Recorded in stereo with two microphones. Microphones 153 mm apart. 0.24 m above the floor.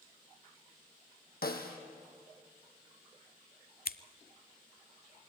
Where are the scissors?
75° left (ahead or behind), 0.6 m.